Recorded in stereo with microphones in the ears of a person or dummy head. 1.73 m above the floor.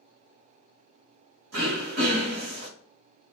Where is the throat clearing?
60° right (ahead or behind), 1.1 m.